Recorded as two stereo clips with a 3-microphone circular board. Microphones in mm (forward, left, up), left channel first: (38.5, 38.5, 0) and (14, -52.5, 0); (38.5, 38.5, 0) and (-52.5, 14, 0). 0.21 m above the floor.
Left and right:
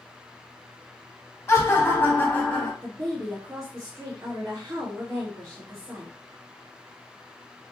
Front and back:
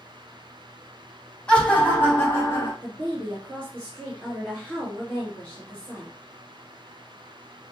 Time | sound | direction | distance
1.5 | laughter | 85° left | 1.1 m
2.8 | a woman speaking | 55° right | 1.9 m